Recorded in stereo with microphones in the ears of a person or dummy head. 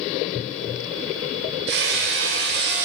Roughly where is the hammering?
Right.